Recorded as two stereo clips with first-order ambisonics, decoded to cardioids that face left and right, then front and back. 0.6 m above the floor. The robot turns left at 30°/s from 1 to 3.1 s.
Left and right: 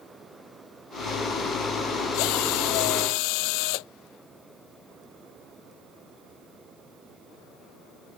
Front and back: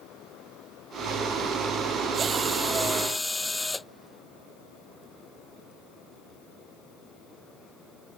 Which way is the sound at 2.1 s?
110° left.